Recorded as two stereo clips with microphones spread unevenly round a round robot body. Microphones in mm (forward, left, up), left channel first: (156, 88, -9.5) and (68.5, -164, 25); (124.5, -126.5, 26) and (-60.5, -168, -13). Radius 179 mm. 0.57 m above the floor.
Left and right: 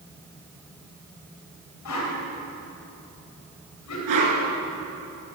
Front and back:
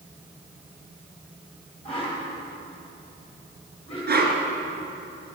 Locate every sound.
1.9 s a whoosh: 90° left, 3 m
4.1 s a whoosh: 130° right, 3 m